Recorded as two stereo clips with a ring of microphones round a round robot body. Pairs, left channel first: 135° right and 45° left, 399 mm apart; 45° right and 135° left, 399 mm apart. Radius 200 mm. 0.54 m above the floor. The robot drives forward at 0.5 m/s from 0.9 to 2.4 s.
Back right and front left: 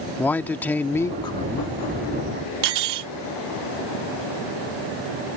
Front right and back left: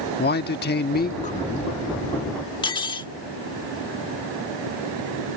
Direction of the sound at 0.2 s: 55° right.